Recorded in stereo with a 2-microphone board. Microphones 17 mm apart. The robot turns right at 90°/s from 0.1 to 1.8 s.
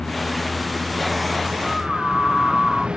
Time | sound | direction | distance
0.0 | a vehicle | 130° left | ?
1.6 | a scream | 40° left (ahead or behind) | ?